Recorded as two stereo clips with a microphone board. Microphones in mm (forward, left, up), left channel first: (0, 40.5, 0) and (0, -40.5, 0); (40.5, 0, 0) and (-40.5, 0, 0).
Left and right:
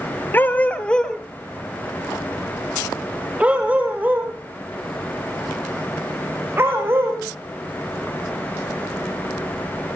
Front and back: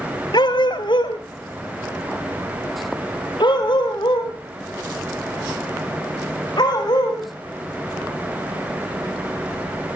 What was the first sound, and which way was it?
A dog barking, 25° left.